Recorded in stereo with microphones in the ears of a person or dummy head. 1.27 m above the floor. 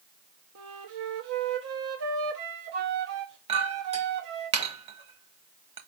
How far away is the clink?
About 0.9 m.